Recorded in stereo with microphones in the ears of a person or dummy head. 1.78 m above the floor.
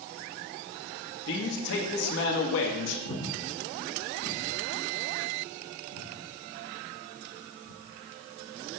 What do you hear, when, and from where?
1.3 s a man speaking: 70° left (ahead or behind), 1.1 m
3.0 s breathing: 80° left, 0.9 m